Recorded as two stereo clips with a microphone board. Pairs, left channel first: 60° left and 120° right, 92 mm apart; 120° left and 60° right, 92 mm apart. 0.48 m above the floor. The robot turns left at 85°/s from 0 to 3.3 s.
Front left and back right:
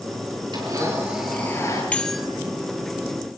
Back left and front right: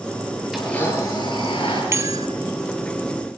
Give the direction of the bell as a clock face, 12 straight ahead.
12 o'clock.